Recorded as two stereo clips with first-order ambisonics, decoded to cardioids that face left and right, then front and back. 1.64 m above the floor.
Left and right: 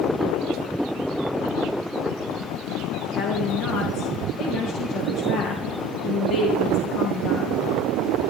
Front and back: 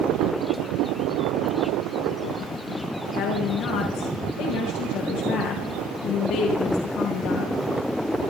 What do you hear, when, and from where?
3.1 s a woman speaking: 40° left, 2.5 m